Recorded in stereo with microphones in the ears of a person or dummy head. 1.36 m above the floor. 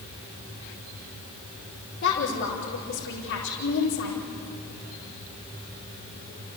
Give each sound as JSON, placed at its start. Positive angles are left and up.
{"t": 2.0, "sound": "a woman speaking", "side_deg": 60, "distance_m": 4.5}